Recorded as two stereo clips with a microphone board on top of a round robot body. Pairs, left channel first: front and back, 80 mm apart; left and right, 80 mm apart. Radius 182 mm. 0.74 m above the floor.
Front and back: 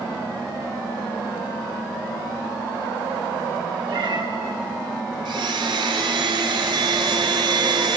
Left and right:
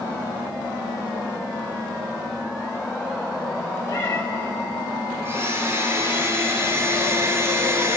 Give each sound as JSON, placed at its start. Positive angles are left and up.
{"t": 3.9, "sound": "a cat meowing", "azimuth_deg": 150, "distance_m": 1.7}
{"t": 5.2, "sound": "a blender", "azimuth_deg": -150, "distance_m": 1.0}